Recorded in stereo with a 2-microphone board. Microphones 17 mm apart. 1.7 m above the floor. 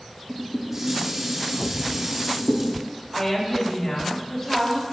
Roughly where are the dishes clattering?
Right.